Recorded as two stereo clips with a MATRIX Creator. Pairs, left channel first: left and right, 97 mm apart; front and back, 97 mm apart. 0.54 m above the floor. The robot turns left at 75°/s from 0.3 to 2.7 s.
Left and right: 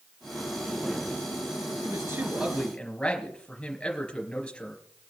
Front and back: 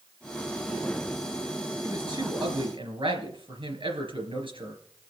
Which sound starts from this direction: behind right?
A man speaking, at 1.8 s.